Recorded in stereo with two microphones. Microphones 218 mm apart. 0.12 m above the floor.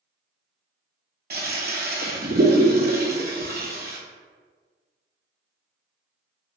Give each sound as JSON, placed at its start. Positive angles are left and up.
{"t": 1.3, "sound": "a toilet flushing", "side_deg": -50, "distance_m": 0.6}